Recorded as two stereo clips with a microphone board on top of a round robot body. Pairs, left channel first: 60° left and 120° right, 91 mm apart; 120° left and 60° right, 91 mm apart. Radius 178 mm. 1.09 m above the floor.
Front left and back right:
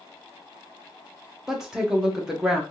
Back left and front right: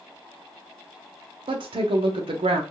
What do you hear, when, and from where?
1.5 s a woman speaking: 35° right, 0.7 m